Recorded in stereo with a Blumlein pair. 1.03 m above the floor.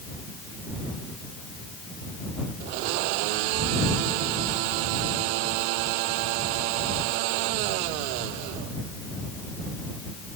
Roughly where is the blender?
Ahead right.